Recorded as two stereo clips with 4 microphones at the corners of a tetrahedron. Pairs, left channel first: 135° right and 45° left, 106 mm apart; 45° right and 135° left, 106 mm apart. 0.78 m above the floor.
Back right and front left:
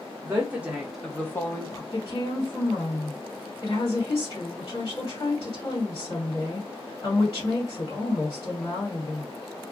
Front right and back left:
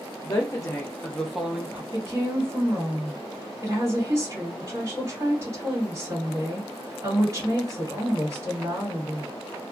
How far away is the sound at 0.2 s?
About 0.8 m.